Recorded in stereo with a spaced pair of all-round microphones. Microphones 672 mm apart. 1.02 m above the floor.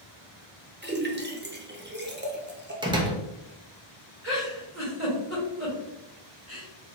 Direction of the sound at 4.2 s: 20° right (ahead or behind).